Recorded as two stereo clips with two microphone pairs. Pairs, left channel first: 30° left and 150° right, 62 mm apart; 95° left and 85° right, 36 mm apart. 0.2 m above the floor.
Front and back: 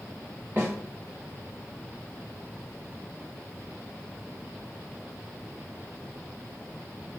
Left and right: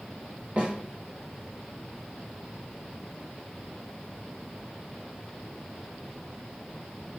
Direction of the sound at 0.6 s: 110° right.